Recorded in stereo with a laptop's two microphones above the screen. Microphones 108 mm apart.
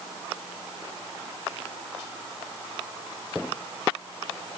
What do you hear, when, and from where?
Only background noise.